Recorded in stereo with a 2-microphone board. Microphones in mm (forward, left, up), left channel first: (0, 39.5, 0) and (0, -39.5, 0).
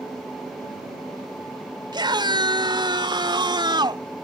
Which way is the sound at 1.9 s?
75° right (ahead or behind).